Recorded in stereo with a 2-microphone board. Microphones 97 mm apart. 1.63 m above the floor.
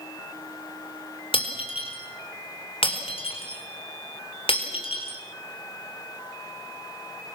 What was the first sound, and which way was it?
Breaking glass, 70° left (ahead or behind).